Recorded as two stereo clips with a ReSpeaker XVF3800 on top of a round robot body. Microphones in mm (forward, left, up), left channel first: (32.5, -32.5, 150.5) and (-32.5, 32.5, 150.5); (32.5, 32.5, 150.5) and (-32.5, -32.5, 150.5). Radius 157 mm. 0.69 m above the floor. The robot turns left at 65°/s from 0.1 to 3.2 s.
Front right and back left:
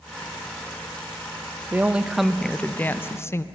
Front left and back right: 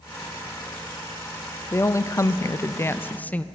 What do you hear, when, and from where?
1.7 s a woman speaking: 85° left, 0.5 m; by 3.5 s 15° right, 0.5 m